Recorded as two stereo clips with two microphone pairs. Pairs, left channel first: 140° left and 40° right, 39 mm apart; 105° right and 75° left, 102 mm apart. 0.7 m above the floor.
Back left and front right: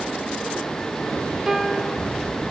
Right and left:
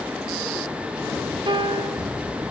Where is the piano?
40° left, 0.6 m.